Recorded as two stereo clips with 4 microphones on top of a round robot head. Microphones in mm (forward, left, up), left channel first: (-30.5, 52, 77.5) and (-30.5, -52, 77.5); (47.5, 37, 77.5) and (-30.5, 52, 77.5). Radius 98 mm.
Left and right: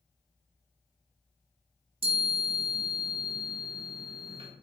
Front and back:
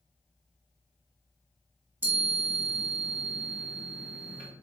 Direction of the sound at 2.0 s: 120° right.